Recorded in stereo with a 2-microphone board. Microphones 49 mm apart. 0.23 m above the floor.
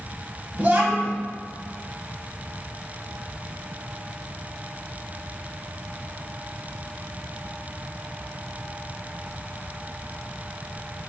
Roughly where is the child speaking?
Right.